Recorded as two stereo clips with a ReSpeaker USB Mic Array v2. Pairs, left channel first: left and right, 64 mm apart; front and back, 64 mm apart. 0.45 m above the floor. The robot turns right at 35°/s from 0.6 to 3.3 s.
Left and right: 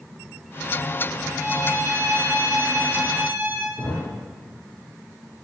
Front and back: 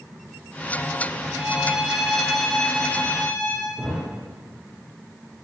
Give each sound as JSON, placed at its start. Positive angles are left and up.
{"t": 1.3, "sound": "a violin", "azimuth_deg": -115, "distance_m": 2.5}
{"t": 3.8, "sound": "a thud", "azimuth_deg": 95, "distance_m": 5.5}